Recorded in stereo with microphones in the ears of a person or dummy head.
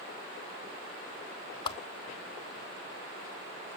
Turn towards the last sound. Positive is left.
turn(degrees=25)  # may be behind; listen again after turning